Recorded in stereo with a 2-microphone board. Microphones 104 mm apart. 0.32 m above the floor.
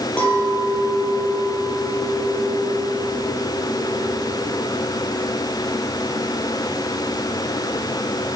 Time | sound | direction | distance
0.2 | a clink | 10° left (ahead or behind) | 6 m